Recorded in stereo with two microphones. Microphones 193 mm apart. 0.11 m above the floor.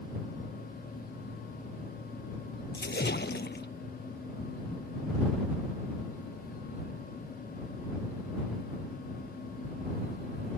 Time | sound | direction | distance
2.7 | a splash | 65° left (ahead or behind) | ?